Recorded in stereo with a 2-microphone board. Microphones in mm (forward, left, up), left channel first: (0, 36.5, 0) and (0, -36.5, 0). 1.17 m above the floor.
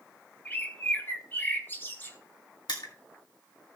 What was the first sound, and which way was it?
A bird, 30° left (ahead or behind).